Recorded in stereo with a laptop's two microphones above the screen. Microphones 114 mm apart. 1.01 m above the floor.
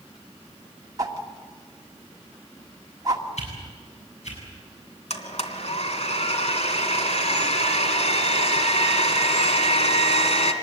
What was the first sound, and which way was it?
A whoosh, 30° right (ahead or behind).